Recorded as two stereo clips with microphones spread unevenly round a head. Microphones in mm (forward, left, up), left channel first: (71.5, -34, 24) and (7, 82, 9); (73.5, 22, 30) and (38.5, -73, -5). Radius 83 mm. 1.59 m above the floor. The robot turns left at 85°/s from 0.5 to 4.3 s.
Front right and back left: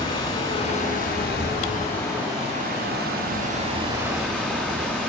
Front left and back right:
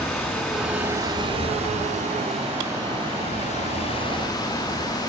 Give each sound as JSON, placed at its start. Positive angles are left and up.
{"t": 0.0, "sound": "running water", "azimuth_deg": -15, "distance_m": 8.0}